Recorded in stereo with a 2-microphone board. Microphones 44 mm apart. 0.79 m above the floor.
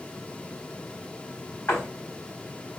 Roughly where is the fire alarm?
No fire alarm in this recording.